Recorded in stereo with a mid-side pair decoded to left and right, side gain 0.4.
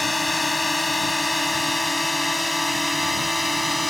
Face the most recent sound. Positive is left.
turn(degrees=10)